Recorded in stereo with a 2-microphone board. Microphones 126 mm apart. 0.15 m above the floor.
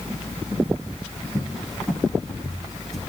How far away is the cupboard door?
About 5 m.